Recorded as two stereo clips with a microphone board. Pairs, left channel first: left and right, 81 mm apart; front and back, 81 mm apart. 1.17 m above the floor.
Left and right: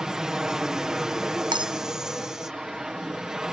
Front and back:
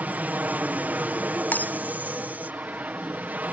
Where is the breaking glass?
70° right.